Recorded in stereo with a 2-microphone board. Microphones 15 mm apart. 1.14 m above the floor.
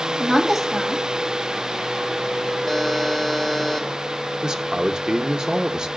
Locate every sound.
0.2 s a woman speaking: 30° right (ahead or behind), 1.9 m
2.7 s a buzzer: 5° left (ahead or behind), 1.3 m
4.4 s a man speaking: 55° right (ahead or behind), 0.8 m